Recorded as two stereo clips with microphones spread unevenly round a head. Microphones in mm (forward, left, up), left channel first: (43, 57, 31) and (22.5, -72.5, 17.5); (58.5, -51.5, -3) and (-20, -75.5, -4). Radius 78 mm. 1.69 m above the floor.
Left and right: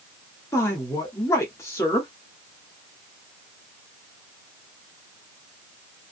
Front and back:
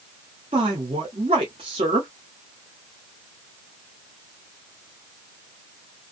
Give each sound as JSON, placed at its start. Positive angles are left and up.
{"t": 0.5, "sound": "a woman speaking", "azimuth_deg": 155, "distance_m": 0.7}